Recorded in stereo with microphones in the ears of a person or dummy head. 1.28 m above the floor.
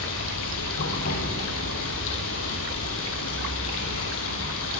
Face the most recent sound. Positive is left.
turn(degrees=75)  # may be behind; listen again after turning